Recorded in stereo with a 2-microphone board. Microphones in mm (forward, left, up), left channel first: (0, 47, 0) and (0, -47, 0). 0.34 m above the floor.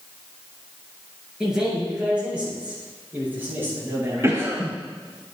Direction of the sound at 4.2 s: 30° right (ahead or behind).